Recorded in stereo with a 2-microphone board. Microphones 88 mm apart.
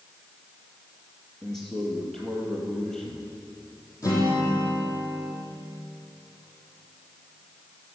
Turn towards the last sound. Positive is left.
turn(degrees=40)  # may be behind; listen again after turning